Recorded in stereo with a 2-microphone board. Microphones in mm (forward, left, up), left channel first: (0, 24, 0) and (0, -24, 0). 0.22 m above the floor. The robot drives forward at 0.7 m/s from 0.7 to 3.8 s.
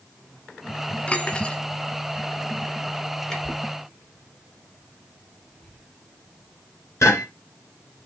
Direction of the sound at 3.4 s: 60° left (ahead or behind).